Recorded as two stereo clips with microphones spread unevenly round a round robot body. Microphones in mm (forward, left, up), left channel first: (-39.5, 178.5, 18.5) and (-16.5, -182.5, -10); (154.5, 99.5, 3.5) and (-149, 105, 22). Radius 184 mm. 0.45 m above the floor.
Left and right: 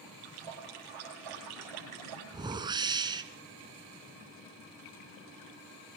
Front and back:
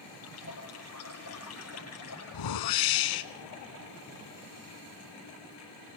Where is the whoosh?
5° right, 1.5 m.